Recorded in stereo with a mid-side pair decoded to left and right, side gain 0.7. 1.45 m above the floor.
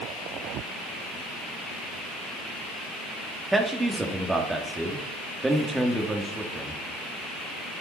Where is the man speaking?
10° right, 3 m.